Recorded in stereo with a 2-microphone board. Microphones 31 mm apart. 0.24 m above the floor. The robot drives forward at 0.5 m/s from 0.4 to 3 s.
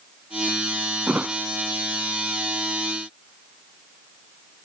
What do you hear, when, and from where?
1.1 s a thud: 60° right (ahead or behind); by 1.4 s 70° right (ahead or behind)